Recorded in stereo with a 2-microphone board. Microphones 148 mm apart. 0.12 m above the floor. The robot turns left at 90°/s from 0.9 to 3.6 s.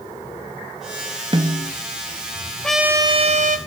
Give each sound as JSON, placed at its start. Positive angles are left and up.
{"t": 1.3, "sound": "a snare drum", "azimuth_deg": -40, "distance_m": 0.7}
{"t": 2.6, "sound": "a trumpet", "azimuth_deg": 5, "distance_m": 0.6}